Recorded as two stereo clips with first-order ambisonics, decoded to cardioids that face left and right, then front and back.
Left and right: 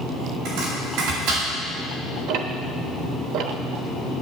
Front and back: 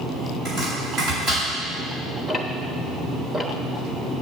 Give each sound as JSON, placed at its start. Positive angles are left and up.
{"t": 0.5, "sound": "chopping", "azimuth_deg": -115, "distance_m": 6.5}
{"t": 2.3, "sound": "ticking", "azimuth_deg": -95, "distance_m": 1.1}